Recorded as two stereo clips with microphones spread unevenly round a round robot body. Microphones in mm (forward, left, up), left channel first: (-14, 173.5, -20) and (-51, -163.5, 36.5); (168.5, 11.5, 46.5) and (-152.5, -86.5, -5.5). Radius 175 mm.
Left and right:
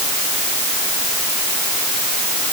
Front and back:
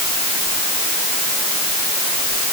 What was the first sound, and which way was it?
Only background noise.